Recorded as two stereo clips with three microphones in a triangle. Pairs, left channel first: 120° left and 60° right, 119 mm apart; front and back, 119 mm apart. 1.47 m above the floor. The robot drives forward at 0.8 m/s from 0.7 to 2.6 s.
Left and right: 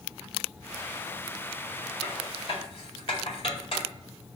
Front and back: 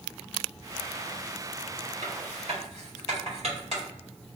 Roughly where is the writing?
Behind left.